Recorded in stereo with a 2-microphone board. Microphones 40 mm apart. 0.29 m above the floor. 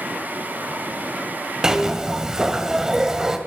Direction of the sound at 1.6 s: 15° right (ahead or behind).